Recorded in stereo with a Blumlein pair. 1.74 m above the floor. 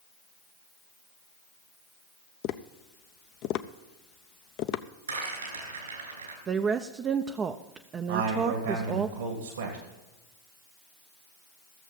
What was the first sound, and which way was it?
Tapping, 40° left.